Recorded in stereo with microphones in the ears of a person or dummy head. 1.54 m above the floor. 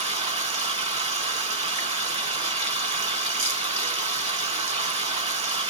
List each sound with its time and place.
0.0 s running water: 35° right (ahead or behind), 0.8 m